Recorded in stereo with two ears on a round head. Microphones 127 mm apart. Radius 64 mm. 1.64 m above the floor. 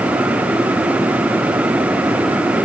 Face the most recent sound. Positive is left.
No sound to turn to.